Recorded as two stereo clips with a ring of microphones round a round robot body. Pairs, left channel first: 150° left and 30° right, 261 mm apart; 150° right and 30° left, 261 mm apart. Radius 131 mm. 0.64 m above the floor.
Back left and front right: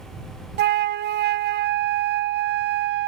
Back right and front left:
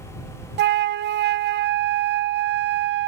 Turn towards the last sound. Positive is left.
turn(degrees=0)